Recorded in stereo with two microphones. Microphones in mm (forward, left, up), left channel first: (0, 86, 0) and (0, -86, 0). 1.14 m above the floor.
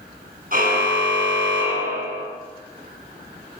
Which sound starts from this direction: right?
A car horn, at 0.5 s.